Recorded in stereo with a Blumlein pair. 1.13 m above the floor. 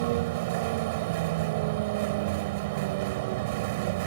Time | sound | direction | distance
0.0 | a vehicle | 50° right | ?